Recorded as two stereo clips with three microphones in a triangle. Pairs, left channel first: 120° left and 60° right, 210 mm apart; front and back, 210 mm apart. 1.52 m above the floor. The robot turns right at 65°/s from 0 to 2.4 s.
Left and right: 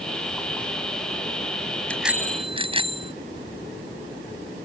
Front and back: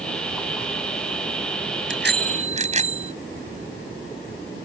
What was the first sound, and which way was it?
A bicycle bell, 155° right.